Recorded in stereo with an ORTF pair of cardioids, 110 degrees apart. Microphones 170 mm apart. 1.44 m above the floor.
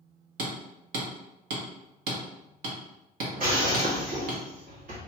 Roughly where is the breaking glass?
Ahead right.